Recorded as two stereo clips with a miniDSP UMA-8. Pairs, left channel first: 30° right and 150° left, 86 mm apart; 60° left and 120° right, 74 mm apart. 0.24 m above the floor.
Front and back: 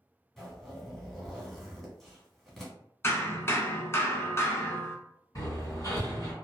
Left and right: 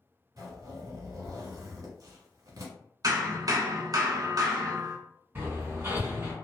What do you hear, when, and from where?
0.4 s a zipper: 120° right, 1.0 m
3.0 s hammering: 90° right, 0.7 m
5.3 s hammering: 70° right, 1.9 m